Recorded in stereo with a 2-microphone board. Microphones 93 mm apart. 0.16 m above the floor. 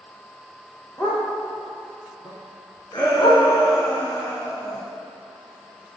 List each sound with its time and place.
1.0 s a dog barking: 20° left (ahead or behind), 2 m; by 3.4 s 80° left, 2.5 m
2.9 s a shout: 50° left (ahead or behind), 1.9 m